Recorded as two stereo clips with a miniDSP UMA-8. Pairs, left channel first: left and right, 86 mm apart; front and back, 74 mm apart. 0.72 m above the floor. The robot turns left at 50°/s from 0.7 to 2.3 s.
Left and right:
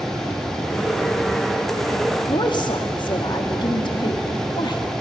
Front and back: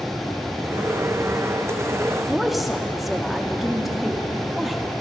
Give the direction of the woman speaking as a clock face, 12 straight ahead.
9 o'clock.